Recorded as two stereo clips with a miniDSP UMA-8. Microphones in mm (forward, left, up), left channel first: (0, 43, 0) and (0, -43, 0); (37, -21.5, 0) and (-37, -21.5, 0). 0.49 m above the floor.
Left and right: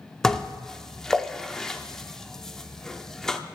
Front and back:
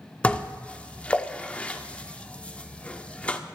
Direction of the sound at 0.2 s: 20° left.